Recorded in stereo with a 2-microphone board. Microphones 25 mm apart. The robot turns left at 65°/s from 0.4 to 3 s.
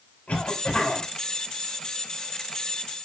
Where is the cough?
65° left, 5.5 m; by 1.1 s 20° left, 5.5 m.